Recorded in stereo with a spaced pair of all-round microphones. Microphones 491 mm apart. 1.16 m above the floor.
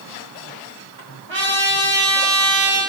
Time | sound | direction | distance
1.3 | a trumpet | 65° right (ahead or behind) | 1.6 m